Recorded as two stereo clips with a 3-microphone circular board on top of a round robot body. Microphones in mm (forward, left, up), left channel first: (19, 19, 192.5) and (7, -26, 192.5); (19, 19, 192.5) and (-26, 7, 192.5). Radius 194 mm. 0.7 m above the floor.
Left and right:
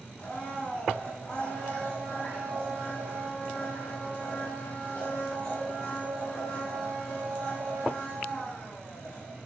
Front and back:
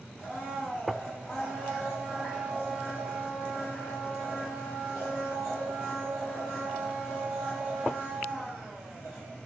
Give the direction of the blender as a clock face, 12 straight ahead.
10 o'clock.